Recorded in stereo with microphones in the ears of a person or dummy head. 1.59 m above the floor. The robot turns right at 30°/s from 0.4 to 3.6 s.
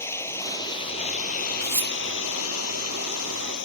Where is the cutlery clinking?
15° left (ahead or behind); by 1.9 s 5° left (ahead or behind).